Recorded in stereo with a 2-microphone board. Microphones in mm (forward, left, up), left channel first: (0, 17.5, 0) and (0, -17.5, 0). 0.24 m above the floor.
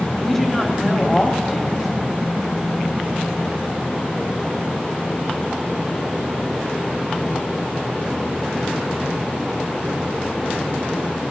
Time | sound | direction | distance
0.2 | a woman speaking | 10° left (ahead or behind) | 1.1 m